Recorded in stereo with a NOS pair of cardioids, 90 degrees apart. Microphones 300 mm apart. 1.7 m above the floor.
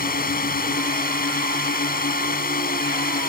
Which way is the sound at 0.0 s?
30° left.